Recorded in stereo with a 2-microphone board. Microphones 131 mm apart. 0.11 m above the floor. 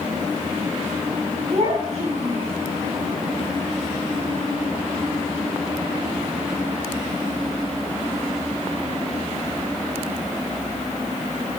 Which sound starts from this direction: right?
A child speaking, at 1.5 s.